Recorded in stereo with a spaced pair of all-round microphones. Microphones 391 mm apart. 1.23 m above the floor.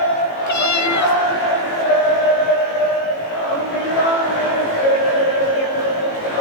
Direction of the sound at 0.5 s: 45° left (ahead or behind).